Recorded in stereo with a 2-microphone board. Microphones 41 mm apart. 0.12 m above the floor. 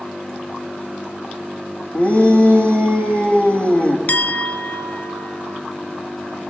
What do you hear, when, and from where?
1.9 s a shout: 35° left (ahead or behind), 5.5 m
4.1 s a clink: 45° left (ahead or behind), 1.4 m